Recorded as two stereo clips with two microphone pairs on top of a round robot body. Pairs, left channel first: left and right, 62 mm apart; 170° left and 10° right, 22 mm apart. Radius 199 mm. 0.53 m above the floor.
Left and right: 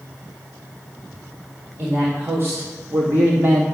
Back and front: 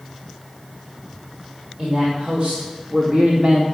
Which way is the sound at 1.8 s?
45° right.